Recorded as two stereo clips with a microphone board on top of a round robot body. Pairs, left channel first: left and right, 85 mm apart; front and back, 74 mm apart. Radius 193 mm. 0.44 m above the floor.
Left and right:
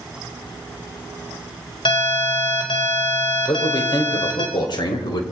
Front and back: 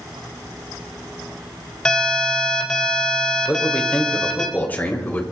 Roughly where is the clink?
I don't hear a clink.